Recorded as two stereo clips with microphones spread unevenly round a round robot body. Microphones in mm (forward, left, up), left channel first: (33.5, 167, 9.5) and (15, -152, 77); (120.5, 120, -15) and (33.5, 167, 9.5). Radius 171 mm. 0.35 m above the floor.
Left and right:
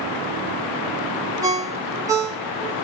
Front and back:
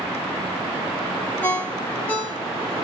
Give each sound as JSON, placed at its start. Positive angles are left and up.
{"t": 1.4, "sound": "a ringtone", "azimuth_deg": -5, "distance_m": 0.9}